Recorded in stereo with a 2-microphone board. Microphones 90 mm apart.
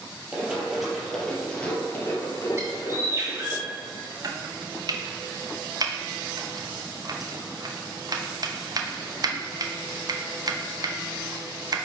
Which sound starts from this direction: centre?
Running footsteps, at 0.3 s.